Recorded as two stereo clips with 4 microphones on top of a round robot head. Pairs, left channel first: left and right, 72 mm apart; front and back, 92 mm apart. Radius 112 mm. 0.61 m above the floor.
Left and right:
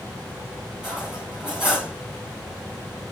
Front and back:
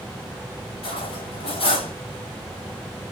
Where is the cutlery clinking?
5° right, 3 m.